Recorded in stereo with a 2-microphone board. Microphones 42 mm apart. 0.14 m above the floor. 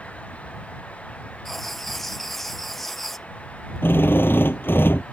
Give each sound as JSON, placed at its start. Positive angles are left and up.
{"t": 1.4, "sound": "writing", "side_deg": 5}
{"t": 3.8, "sound": "a drill", "side_deg": 65}